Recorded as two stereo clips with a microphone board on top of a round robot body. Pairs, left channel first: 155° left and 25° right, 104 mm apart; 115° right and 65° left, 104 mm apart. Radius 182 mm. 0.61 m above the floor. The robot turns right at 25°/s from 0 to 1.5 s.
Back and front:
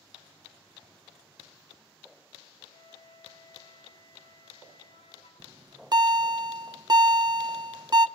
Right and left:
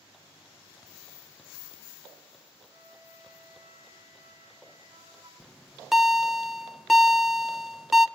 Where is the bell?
20° right, 1.3 m.